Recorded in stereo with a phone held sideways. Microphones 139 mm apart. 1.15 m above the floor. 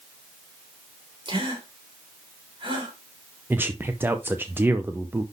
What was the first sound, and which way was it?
A gasp, 35° right (ahead or behind).